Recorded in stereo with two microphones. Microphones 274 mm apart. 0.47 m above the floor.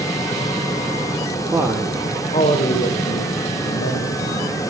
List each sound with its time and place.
1.5 s a man speaking: 10° right (ahead or behind), 1.3 m; by 4.5 s 55° left (ahead or behind), 3.5 m